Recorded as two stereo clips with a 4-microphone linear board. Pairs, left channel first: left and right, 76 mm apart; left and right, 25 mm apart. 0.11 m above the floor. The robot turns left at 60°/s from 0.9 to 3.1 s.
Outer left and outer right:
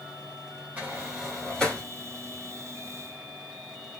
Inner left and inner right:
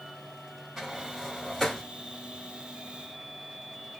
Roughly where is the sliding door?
Right.